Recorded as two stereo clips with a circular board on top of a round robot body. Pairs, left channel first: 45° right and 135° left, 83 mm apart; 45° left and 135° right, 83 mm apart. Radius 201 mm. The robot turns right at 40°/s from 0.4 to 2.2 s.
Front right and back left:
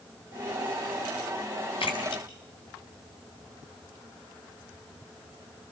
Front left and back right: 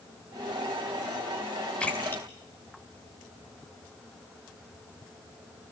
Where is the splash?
35° right, 3.5 m; by 3.6 s 20° right, 3.5 m.